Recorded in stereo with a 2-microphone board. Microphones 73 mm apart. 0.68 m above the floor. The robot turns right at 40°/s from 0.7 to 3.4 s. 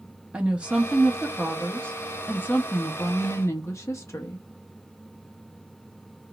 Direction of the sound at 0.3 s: 25° right.